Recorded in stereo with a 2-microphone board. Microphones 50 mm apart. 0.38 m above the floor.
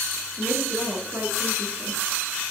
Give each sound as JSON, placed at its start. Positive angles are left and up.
{"t": 0.4, "sound": "a woman speaking", "side_deg": -40, "distance_m": 6.5}